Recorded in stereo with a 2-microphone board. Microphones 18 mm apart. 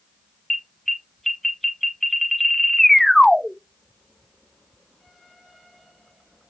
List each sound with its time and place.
0.5 s an alarm: 10° left (ahead or behind), 0.8 m